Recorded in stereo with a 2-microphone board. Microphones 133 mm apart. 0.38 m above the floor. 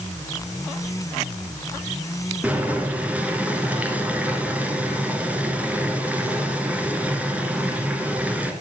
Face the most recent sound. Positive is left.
turn(degrees=-10)  # may be behind; listen again after turning